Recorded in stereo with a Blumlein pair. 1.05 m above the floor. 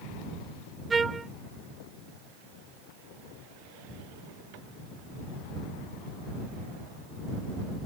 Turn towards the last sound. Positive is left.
turn(degrees=-15)